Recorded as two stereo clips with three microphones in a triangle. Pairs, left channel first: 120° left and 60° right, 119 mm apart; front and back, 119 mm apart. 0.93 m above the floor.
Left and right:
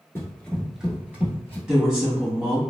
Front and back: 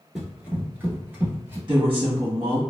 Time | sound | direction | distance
0.1 | running footsteps | 105° left | 0.9 m
1.7 | a woman speaking | 140° right | 1.5 m